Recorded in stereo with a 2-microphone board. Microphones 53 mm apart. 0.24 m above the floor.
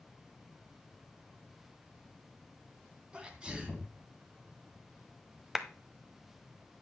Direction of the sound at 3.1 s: 20° right (ahead or behind).